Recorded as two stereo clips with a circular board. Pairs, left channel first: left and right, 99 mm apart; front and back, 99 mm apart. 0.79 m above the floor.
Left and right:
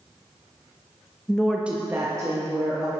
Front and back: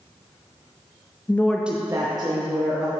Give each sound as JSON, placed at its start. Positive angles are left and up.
{"t": 1.3, "sound": "a woman speaking", "azimuth_deg": 25, "distance_m": 0.6}